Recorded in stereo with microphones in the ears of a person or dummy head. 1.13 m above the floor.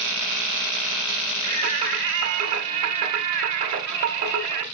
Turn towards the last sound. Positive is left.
turn(degrees=-50)  # may be behind; listen again after turning